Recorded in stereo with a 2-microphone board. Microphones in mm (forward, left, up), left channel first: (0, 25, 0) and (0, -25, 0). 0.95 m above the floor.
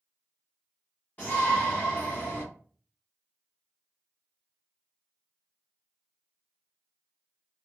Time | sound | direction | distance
1.2 | a shout | 35° left (ahead or behind) | 1.3 m